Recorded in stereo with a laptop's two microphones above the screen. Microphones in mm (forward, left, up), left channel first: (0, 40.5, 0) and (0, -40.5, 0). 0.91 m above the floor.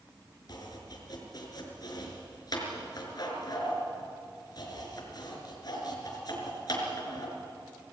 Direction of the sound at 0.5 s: 55° left (ahead or behind).